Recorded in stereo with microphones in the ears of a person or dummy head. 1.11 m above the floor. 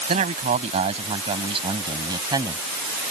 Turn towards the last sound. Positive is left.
turn(degrees=-20)  # may be behind; listen again after turning